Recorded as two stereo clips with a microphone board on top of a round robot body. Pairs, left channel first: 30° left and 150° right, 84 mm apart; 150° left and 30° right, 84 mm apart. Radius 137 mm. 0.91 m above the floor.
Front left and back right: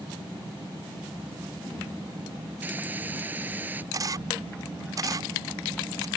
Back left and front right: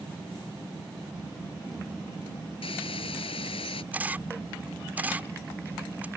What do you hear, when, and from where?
2.6 s a hiss: 140° left
3.9 s a camera shutter: 105° right